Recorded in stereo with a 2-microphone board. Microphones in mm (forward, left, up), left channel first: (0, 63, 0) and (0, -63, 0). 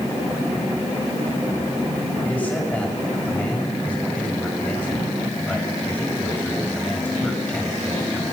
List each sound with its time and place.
2.2 s a man speaking: 10° left (ahead or behind), 6.5 m